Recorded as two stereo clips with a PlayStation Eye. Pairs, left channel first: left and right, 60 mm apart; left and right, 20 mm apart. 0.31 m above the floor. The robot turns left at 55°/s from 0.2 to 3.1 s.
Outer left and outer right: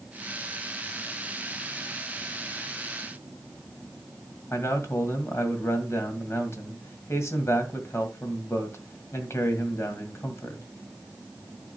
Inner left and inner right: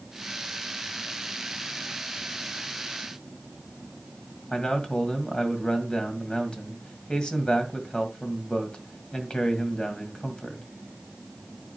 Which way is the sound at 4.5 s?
50° left (ahead or behind).